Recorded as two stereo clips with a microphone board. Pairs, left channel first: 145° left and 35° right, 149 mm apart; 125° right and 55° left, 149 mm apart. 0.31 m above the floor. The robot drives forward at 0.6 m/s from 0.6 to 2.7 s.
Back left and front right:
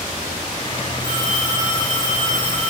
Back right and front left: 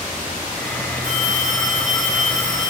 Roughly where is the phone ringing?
Behind right.